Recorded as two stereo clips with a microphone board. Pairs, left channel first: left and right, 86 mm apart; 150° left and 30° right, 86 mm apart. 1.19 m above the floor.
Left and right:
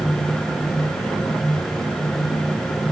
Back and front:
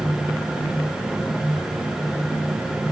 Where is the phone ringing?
No phone ringing in this recording.